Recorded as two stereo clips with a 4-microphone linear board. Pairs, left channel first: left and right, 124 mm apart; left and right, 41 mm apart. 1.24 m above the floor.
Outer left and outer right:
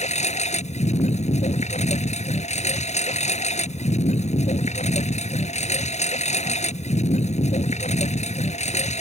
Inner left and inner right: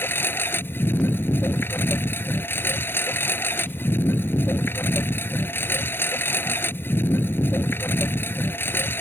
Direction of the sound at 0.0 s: 65° left (ahead or behind).